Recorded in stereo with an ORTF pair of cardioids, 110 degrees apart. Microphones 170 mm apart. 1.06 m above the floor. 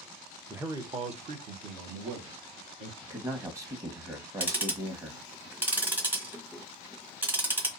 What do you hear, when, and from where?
0.5 s a man speaking: 5° right, 0.6 m; by 2.9 s 75° right, 1.7 m
3.0 s a man speaking: 20° right, 1.1 m
4.4 s ticking: 10° right, 0.9 m